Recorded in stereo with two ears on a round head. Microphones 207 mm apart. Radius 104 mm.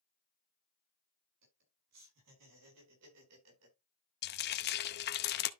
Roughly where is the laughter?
Right.